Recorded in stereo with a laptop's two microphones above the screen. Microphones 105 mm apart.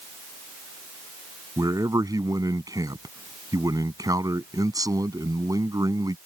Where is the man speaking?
30° right (ahead or behind).